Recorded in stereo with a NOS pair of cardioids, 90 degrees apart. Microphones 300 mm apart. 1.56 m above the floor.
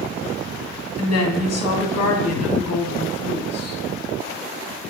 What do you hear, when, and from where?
1.0 s a woman speaking: 55° left, 1.4 m